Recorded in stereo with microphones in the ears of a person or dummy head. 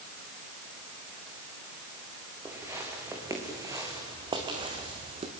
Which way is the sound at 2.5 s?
15° right (ahead or behind).